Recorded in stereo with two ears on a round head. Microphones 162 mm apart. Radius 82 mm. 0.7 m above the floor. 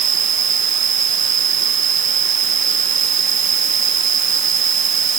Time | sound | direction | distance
0.0 | an insect | 45° right (ahead or behind) | ?